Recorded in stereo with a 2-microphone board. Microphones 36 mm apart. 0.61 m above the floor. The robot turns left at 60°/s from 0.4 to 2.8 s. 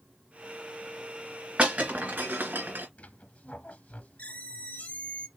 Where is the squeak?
50° left (ahead or behind), 0.8 m.